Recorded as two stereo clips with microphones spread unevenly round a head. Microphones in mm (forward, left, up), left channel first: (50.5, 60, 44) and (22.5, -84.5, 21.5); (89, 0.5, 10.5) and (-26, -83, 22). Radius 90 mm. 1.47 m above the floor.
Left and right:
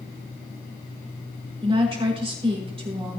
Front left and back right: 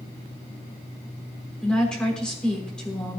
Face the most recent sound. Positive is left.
turn(degrees=-50)